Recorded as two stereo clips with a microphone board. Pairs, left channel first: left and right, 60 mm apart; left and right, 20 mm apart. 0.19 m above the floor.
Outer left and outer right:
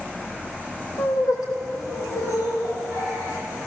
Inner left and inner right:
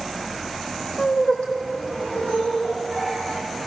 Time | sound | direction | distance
1.0 | laughter | 80° left | 8.5 m